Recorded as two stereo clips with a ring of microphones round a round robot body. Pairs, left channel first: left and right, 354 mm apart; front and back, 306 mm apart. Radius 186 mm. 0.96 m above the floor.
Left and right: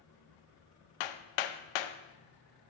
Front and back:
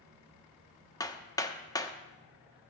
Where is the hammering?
80° left, 0.7 m.